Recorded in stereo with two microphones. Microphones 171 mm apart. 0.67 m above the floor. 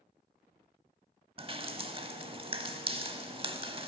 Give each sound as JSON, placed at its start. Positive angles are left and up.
{"t": 1.4, "sound": "dripping", "side_deg": -35, "distance_m": 0.6}